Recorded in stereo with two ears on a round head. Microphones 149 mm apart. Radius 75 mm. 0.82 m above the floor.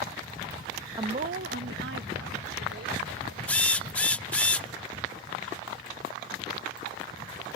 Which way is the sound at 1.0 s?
25° right (ahead or behind).